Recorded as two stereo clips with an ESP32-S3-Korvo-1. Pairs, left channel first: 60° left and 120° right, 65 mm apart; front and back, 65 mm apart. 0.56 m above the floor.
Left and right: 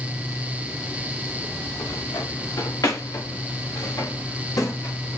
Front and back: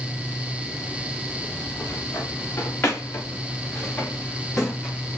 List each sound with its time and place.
1.7 s footsteps: 50° left, 4 m; by 5.2 s 85° left, 4 m